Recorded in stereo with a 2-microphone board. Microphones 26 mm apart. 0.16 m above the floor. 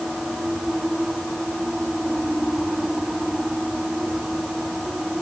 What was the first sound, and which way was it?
Only background noise.